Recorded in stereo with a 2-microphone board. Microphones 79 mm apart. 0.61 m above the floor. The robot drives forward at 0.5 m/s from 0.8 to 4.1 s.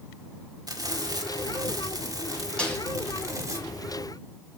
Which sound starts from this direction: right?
Frying, at 0.7 s.